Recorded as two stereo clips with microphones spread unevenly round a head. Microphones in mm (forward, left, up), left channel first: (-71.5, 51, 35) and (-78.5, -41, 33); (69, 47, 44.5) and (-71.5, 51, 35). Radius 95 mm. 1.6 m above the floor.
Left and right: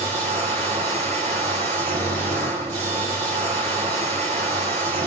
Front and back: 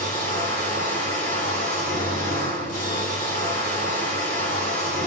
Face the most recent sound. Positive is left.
turn(degrees=-50)